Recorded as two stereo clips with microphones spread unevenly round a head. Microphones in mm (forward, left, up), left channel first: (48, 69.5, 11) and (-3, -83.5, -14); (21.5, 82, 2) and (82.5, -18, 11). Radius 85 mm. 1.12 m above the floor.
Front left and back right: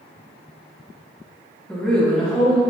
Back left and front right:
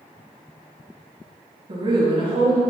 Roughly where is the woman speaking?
Ahead.